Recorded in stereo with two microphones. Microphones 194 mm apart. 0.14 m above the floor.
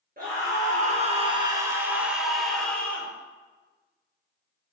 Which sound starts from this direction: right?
A scream, at 0.2 s.